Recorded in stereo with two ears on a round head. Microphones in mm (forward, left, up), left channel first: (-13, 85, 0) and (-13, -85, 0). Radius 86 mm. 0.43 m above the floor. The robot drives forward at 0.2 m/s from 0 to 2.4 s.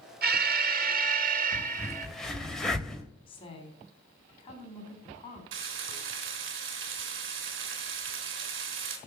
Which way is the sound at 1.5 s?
5° left (ahead or behind).